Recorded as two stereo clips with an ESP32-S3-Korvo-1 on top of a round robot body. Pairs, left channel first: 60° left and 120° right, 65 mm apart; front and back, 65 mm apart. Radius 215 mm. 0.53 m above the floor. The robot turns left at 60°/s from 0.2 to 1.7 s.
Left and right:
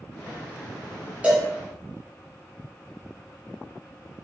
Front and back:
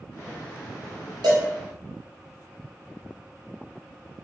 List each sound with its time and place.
1.2 s a cowbell: 170° left, 1.0 m; by 1.5 s 155° left, 1.0 m